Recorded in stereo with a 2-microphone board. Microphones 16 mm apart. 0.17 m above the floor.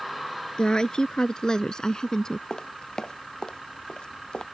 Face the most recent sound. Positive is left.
turn(degrees=65)  # may be behind; listen again after turning